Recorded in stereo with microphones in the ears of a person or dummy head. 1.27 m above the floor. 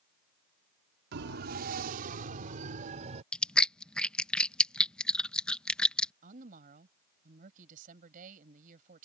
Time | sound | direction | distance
1.1 | a siren | 60° right (ahead or behind) | ?
3.3 | chewing | 5° left (ahead or behind) | ?
6.2 | a woman speaking | 45° right (ahead or behind) | ?